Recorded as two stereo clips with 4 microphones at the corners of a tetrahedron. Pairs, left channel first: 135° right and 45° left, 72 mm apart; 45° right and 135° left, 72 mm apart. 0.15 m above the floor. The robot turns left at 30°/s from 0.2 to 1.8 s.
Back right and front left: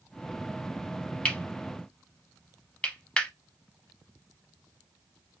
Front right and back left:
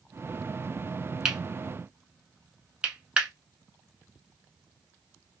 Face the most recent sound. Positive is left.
turn(degrees=175)